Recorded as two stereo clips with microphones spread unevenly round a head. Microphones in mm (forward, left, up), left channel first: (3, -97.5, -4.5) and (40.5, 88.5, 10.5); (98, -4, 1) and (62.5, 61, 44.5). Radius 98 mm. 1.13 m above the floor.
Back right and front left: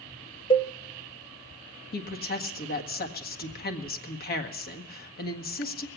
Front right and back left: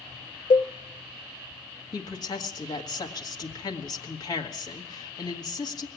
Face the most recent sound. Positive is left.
turn(degrees=-60)